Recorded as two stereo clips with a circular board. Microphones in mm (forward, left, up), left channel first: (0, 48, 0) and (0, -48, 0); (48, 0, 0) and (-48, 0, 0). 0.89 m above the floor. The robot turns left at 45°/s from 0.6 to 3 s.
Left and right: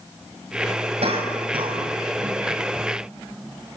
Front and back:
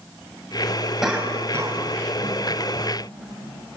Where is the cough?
95° right, 5.5 m; by 2.4 s 155° right, 5.5 m.